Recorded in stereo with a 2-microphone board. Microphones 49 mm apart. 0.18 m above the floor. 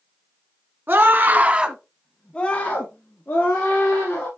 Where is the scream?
45° right (ahead or behind), 1.6 m; by 4.3 s 45° left (ahead or behind), 3.5 m.